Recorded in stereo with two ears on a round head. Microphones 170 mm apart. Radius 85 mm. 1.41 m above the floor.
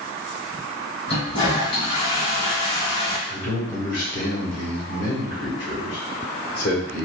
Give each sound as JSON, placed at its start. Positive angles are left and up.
{"t": 1.1, "sound": "a toilet flushing", "side_deg": 30, "distance_m": 1.8}
{"t": 3.3, "sound": "a man speaking", "side_deg": 65, "distance_m": 1.7}